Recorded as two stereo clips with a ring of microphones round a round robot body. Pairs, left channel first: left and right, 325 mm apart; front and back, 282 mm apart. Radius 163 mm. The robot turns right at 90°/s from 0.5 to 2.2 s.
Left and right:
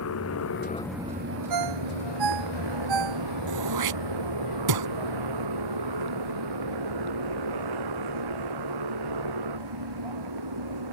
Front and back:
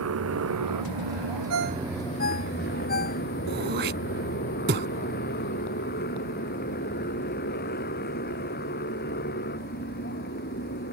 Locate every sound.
0.0 s a motorcycle: 140° left; by 10.9 s 65° right
1.5 s a ringtone: 130° right; by 3.2 s 65° right
3.5 s throat clearing: 120° right